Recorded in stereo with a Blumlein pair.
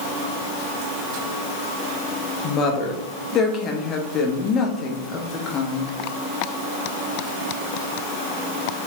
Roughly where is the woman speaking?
Ahead left.